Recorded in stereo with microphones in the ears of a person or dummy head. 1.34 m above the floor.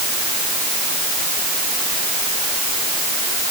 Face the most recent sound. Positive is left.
No sound to turn to.